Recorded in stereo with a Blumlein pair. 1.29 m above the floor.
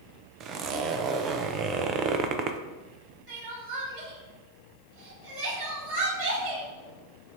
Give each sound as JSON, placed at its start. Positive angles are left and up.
{"t": 0.4, "sound": "a zipper", "azimuth_deg": -30, "distance_m": 0.6}
{"t": 3.3, "sound": "crying", "azimuth_deg": -40, "distance_m": 3.0}